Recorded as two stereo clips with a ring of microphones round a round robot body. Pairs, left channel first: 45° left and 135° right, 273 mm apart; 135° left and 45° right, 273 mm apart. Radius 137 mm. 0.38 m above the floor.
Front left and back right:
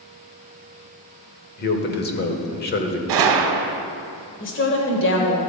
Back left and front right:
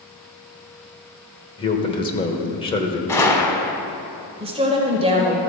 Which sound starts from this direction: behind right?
A gunshot, at 3.1 s.